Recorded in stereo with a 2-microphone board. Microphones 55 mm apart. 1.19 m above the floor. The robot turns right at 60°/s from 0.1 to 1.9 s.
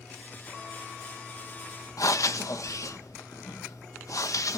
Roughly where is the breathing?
Left.